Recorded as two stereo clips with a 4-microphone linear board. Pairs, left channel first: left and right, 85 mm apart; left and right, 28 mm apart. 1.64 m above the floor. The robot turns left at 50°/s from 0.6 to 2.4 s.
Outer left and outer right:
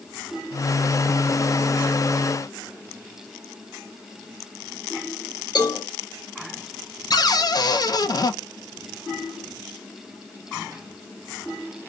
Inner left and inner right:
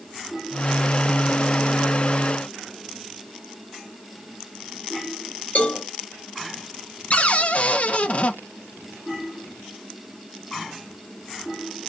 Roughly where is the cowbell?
Left.